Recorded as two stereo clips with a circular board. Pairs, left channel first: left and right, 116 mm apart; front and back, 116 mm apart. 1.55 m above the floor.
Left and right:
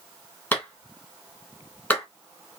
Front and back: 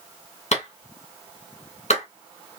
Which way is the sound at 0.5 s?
15° left.